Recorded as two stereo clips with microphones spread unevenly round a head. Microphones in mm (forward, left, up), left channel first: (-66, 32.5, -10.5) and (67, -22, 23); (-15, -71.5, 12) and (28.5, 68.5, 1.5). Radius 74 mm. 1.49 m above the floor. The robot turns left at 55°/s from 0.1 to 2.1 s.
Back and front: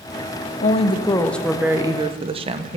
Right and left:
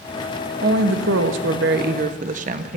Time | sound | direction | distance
0.6 | a woman speaking | 110° left | 0.8 m